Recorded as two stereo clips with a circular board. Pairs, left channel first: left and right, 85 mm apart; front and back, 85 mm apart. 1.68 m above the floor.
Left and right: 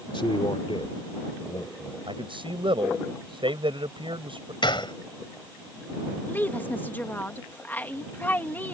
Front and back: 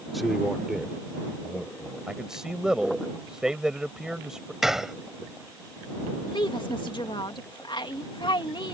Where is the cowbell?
No cowbell in this recording.